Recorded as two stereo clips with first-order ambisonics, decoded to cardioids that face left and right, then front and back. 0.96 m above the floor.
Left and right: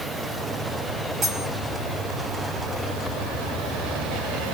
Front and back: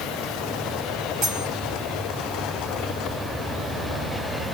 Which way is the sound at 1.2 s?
145° right.